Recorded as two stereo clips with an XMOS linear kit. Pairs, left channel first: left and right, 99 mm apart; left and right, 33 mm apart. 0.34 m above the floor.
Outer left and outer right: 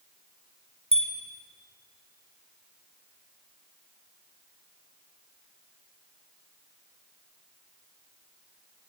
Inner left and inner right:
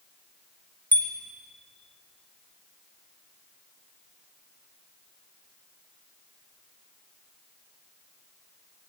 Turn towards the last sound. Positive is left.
turn(degrees=80)